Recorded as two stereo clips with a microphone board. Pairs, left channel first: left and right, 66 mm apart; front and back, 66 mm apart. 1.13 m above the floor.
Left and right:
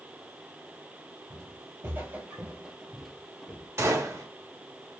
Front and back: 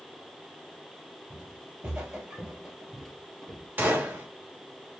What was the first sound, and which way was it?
Footsteps, 115° right.